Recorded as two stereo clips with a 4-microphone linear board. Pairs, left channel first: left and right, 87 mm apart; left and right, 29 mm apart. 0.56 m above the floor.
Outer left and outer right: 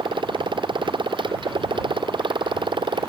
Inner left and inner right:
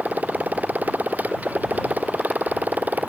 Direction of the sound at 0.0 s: 85° right.